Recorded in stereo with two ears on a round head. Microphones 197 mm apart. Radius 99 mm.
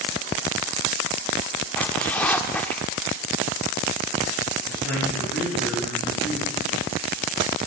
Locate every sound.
1.8 s a zipper: 10° left (ahead or behind), 0.5 m
4.7 s a man speaking: 5° left (ahead or behind), 8 m